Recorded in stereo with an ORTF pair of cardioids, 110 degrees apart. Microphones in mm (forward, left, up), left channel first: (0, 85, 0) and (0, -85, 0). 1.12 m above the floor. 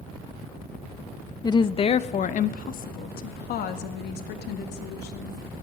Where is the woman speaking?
25° left, 0.7 m; by 5.4 s 75° left, 2.5 m.